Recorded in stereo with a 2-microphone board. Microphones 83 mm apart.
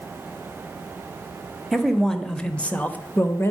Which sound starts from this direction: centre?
A man speaking, at 1.7 s.